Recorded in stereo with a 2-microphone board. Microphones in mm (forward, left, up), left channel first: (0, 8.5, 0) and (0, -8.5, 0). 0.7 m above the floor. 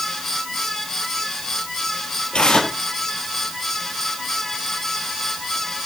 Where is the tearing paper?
85° left, 6 m.